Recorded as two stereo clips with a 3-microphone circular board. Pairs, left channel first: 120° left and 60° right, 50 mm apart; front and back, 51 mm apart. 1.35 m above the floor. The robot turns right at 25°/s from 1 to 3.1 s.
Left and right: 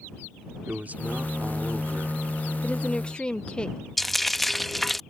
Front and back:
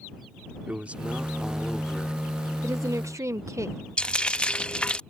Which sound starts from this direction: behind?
A woman speaking, at 2.6 s.